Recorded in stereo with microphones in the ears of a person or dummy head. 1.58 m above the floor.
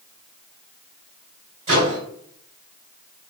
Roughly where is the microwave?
Right.